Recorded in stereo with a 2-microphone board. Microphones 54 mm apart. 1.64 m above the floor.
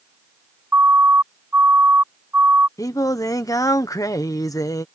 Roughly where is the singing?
Left.